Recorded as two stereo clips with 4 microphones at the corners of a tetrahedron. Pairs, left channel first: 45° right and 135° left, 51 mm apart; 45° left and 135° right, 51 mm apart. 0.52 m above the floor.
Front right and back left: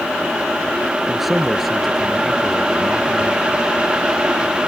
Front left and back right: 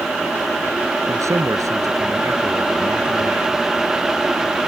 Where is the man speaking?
140° right; by 3.5 s 130° right.